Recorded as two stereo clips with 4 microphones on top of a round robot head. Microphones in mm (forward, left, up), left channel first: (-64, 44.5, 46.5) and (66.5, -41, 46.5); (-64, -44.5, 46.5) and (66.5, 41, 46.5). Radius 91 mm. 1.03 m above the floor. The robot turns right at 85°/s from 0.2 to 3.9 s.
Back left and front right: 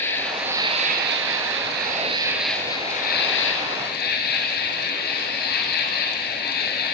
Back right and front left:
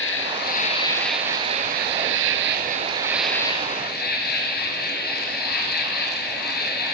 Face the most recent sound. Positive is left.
turn(degrees=180)